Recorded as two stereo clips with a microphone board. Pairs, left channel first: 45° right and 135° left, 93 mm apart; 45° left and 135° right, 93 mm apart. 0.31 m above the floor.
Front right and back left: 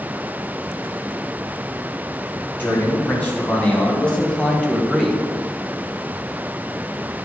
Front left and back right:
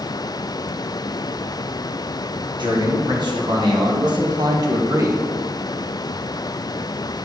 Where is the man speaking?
115° right, 3 m; by 5.3 s 140° right, 1.2 m.